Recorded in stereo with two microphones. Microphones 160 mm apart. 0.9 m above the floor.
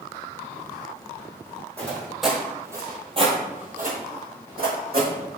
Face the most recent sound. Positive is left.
turn(degrees=-65)  # may be behind; listen again after turning